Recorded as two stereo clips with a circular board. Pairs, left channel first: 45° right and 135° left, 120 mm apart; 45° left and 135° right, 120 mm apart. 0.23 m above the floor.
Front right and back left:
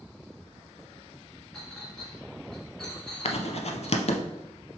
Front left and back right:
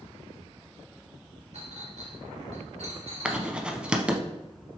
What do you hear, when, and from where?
1.5 s a clink: 130° right, 1.7 m
3.2 s writing: 55° right, 0.6 m